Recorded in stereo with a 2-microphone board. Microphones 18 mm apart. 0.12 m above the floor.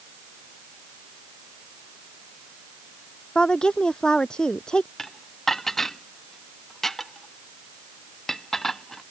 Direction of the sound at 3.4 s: 45° left (ahead or behind).